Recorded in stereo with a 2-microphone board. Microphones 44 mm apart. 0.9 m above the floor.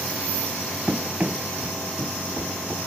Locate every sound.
0.9 s running footsteps: 30° right (ahead or behind), 1.0 m; by 2.8 s 40° right (ahead or behind), 1.8 m